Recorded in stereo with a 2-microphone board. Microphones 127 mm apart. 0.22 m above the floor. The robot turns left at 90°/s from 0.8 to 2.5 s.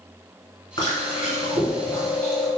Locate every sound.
0.8 s chewing: 140° left, 1.5 m; by 2.5 s 15° right, 1.5 m